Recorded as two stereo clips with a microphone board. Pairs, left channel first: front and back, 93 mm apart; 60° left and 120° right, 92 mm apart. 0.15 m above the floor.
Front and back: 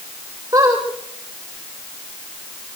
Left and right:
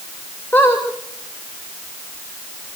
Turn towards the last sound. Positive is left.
turn(degrees=125)